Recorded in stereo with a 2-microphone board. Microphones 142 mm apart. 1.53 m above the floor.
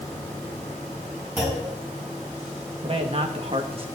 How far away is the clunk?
About 7.5 m.